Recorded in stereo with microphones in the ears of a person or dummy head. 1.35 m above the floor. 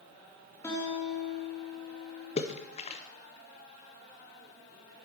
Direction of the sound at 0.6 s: 15° left (ahead or behind).